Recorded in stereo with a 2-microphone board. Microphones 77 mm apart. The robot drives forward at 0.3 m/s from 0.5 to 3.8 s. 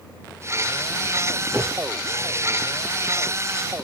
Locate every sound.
1.5 s a whoosh: 5° left (ahead or behind), 8 m